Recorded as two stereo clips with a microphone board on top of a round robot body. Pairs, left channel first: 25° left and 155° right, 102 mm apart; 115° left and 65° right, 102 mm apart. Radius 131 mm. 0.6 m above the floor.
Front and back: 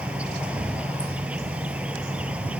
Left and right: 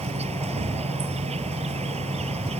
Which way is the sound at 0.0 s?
80° right.